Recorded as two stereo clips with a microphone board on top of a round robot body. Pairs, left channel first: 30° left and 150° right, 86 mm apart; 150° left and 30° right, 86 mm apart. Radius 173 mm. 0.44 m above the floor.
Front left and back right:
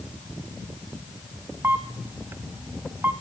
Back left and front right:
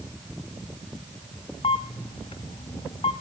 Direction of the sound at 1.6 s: 145° left.